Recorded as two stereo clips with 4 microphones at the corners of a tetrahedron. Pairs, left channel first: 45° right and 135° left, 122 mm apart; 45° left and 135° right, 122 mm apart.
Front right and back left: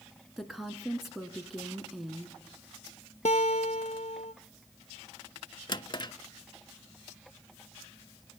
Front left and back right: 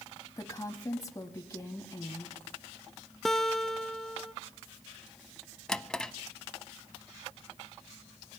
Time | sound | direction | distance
0.4 | a woman speaking | 50° left | 1.1 m
3.2 | a guitar | 45° right | 0.6 m
5.7 | a drawer | 35° right | 0.6 m